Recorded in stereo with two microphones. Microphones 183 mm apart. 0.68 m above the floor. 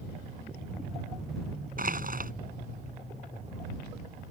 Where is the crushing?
55° right (ahead or behind).